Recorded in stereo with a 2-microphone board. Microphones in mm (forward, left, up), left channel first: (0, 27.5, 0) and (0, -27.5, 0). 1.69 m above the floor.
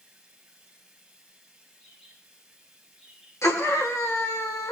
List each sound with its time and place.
0.0 s running water: 15° right (ahead or behind), 2.5 m
1.8 s a bird: 5° left (ahead or behind), 5.5 m
3.4 s a scream: 85° left, 1.8 m